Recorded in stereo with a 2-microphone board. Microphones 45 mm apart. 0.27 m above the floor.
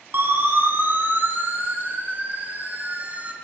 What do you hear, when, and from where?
0.1 s a siren: 50° right (ahead or behind), 8 m; by 3.3 s 30° right (ahead or behind), 4.5 m